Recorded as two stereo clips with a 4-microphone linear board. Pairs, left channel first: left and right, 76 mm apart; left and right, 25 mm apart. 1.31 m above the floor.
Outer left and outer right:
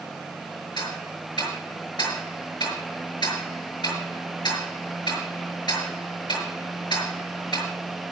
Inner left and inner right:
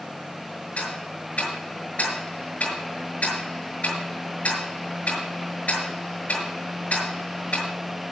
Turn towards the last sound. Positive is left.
turn(degrees=75)  # may be behind; listen again after turning